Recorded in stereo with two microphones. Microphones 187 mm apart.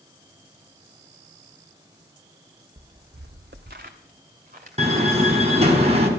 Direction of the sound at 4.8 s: 35° right (ahead or behind).